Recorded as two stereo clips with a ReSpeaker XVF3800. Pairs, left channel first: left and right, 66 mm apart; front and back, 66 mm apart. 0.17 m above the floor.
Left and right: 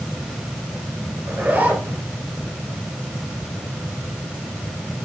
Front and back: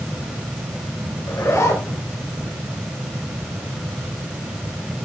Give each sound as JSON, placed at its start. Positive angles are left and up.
{"t": 1.3, "sound": "a zipper", "azimuth_deg": -35, "distance_m": 2.5}